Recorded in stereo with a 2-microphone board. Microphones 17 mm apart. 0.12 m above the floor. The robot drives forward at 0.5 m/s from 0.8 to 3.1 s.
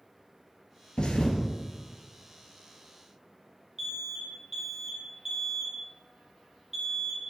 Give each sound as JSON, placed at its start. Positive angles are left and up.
{"t": 1.0, "sound": "a thud", "side_deg": 55, "distance_m": 1.0}
{"t": 3.8, "sound": "an alarm", "side_deg": -20, "distance_m": 1.4}